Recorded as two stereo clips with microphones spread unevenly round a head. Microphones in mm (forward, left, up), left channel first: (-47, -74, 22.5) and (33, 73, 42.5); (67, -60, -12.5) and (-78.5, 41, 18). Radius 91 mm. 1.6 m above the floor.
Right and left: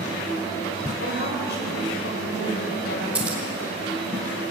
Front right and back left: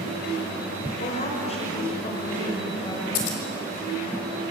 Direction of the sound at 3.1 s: 20° right.